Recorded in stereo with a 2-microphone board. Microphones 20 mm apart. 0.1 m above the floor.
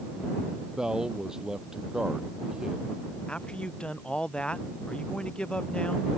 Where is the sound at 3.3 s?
65° left (ahead or behind).